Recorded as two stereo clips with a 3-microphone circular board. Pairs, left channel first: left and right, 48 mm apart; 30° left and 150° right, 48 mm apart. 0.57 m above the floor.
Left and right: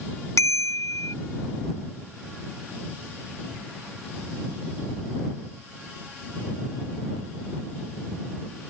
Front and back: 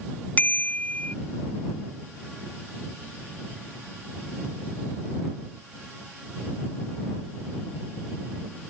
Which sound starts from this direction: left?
A bicycle bell, at 0.4 s.